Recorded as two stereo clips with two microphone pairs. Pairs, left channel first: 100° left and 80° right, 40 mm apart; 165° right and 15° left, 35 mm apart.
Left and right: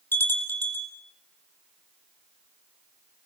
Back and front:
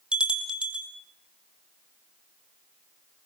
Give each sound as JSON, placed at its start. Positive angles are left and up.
{"t": 0.1, "sound": "a bell", "azimuth_deg": 75, "distance_m": 2.5}